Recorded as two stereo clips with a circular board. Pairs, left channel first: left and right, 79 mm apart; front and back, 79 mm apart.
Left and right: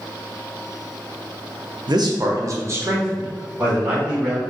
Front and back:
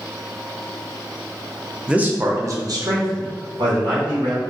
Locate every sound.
1.9 s a man speaking: 105° right, 0.6 m; by 4.4 s 165° right, 1.7 m